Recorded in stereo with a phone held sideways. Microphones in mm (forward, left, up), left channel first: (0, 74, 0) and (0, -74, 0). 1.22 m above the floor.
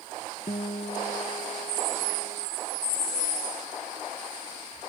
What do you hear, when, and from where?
0.5 s a guitar: 50° left (ahead or behind)